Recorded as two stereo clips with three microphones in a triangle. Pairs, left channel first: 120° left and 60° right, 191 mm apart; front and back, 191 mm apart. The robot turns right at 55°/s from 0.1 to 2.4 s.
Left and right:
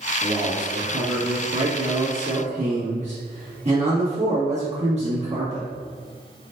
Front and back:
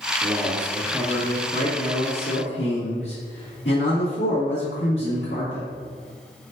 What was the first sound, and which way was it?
A man speaking, 125° right.